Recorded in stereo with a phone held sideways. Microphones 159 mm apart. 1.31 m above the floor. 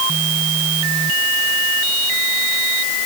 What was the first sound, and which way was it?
Only background noise.